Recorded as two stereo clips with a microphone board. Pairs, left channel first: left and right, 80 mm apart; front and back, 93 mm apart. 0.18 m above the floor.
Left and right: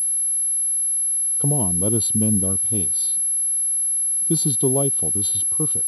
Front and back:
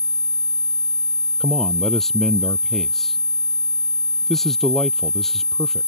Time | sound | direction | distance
1.4 | a man speaking | 85° left | ?